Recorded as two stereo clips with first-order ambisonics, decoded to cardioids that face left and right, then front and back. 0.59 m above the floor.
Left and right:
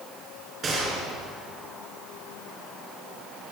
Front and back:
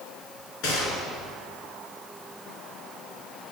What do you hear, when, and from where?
0.6 s a gunshot: 25° right, 4.5 m